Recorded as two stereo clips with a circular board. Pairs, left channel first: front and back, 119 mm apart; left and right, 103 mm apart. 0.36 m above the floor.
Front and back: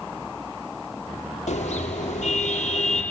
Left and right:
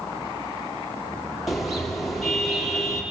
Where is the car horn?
Straight ahead, 6 m.